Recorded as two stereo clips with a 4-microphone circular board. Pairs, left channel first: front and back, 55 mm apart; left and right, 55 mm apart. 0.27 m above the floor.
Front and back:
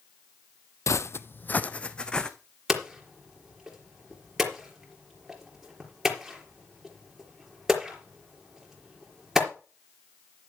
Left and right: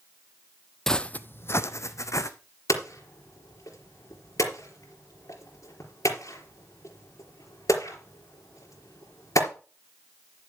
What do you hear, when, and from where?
0.9 s footsteps: 10° left, 0.5 m; by 2.3 s 75° left, 1.2 m
2.7 s hammering: 100° left, 4 m